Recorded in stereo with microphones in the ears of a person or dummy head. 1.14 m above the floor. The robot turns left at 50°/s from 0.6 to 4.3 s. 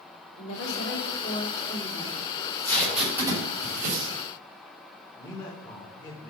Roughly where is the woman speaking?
Left.